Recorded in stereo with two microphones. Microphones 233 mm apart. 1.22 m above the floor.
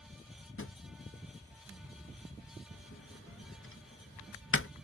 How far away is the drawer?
About 0.6 m.